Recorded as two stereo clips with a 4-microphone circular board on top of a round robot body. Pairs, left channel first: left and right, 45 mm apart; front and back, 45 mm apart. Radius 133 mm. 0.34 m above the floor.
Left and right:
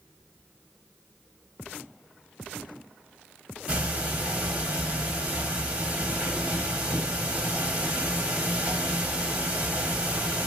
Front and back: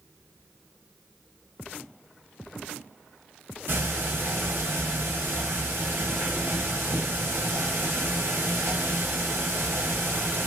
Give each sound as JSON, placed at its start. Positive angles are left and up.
{"t": 3.7, "sound": "ticking", "azimuth_deg": -150, "distance_m": 1.5}